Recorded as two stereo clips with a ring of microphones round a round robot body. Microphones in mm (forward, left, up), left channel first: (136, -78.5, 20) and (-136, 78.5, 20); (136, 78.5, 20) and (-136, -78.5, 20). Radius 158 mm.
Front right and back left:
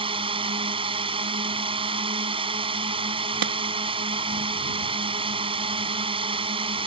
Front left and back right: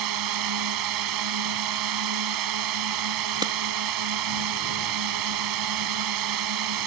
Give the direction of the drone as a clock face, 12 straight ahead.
5 o'clock.